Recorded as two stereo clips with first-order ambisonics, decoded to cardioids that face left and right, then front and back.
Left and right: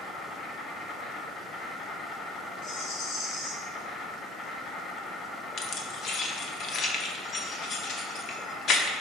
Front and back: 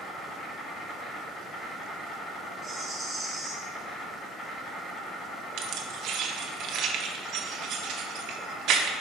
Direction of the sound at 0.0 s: 50° left.